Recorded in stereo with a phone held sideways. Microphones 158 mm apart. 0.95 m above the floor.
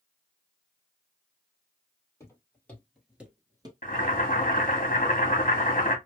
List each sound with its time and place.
2.2 s footsteps: 20° left (ahead or behind), 1.7 m; by 3.7 s 30° right (ahead or behind), 1.0 m
3.8 s boiling: 55° left (ahead or behind), 1.6 m